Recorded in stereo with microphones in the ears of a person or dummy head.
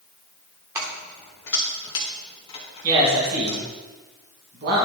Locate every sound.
0.8 s keys jangling: 15° right (ahead or behind), 1.1 m; by 3.6 s 30° left (ahead or behind), 2.5 m
2.8 s a man speaking: 50° right (ahead or behind), 2 m